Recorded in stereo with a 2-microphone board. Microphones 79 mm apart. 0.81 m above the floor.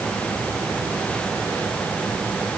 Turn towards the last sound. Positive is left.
No sound to turn to.